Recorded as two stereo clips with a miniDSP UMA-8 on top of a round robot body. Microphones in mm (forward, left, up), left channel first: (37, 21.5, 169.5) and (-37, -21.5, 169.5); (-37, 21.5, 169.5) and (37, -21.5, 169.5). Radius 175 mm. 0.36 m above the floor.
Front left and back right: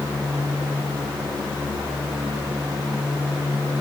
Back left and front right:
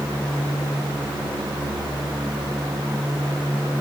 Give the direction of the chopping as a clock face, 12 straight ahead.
No chopping in this recording.